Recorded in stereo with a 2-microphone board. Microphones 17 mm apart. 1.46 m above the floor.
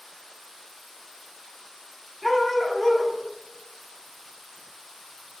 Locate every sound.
2.2 s a dog barking: 10° left (ahead or behind), 0.9 m